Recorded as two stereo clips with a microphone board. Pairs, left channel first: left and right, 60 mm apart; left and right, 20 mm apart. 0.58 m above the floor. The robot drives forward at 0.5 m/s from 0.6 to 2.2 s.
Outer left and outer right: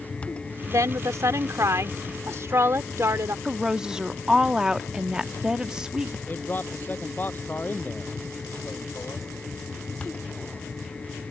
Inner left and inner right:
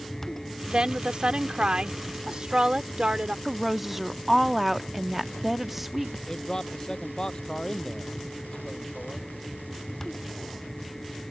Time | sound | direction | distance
0.7 | a woman speaking | 55° right (ahead or behind) | ?
3.5 | a woman speaking | 10° right (ahead or behind) | ?
6.3 | a man speaking | 30° left (ahead or behind) | ?